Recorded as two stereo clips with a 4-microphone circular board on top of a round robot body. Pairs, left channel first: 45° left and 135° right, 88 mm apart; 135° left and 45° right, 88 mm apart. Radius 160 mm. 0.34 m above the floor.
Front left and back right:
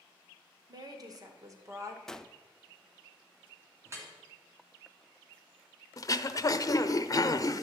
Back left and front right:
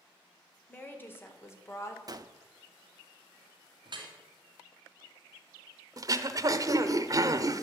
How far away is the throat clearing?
About 0.8 m.